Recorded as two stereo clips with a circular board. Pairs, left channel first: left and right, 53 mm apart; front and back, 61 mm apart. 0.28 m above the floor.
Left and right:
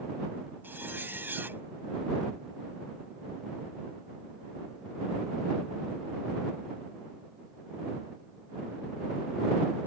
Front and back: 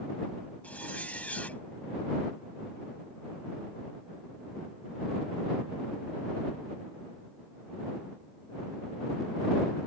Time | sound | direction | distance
0.6 | a zipper | 60° right | ?